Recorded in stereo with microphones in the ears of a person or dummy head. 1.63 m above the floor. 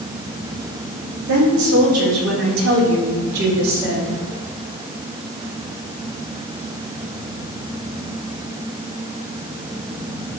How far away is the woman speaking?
About 3.5 m.